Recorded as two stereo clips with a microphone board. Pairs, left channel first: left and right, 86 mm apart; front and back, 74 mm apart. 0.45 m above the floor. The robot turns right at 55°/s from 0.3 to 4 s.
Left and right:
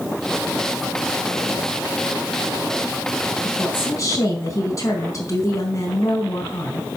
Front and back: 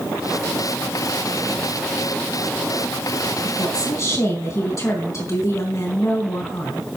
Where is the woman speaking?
10° left, 4 m; by 6.9 s 40° left, 4 m.